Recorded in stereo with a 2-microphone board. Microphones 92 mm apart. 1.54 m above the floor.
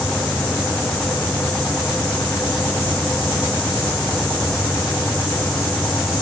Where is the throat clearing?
I don't hear throat clearing.